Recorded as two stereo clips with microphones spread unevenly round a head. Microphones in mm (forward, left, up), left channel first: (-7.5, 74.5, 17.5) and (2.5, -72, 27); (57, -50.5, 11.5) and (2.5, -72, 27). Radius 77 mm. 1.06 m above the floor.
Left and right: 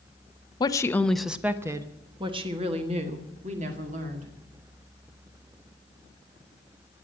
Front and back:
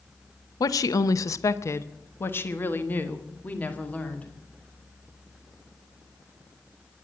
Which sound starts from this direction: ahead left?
A woman speaking, at 0.6 s.